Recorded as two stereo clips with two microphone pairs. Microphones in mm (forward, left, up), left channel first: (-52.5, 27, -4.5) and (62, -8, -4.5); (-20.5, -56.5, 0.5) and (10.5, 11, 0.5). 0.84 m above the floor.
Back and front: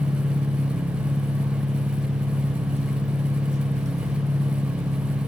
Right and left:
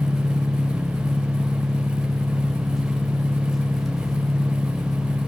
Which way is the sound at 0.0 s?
25° right.